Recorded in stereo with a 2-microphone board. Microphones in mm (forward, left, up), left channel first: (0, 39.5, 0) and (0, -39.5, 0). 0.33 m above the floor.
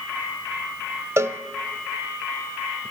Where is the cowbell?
40° right (ahead or behind), 0.8 m.